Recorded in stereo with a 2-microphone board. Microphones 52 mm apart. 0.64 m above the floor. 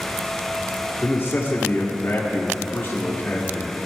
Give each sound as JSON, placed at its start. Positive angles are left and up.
{"t": 1.0, "sound": "a man speaking", "side_deg": 40, "distance_m": 1.4}